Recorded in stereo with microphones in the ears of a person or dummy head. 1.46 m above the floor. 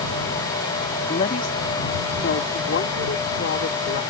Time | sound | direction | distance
1.1 | a woman speaking | 40° left (ahead or behind) | ?